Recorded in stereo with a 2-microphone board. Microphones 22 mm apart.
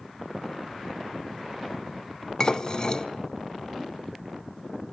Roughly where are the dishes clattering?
Left.